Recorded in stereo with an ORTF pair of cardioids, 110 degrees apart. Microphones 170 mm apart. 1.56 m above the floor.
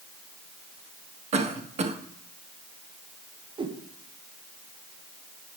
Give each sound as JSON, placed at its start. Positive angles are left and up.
{"t": 1.3, "sound": "a cough", "azimuth_deg": -40, "distance_m": 1.6}
{"t": 3.6, "sound": "a whoosh", "azimuth_deg": -30, "distance_m": 1.4}